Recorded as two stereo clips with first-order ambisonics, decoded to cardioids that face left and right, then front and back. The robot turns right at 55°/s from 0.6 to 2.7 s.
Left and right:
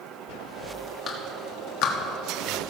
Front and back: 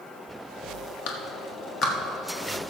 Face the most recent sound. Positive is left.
turn(degrees=110)